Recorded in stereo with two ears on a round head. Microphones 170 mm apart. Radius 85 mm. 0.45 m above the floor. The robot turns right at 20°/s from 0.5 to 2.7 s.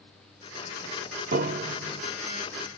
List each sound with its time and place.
1.3 s a piano: 50° right (ahead or behind), 0.7 m; by 2.0 s 40° right (ahead or behind), 0.7 m